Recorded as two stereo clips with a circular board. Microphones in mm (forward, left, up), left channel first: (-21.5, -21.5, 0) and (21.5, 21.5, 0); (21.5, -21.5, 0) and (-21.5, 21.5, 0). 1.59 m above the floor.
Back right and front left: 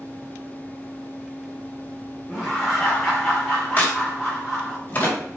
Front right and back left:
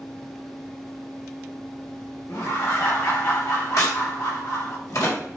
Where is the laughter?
35° right, 3 m.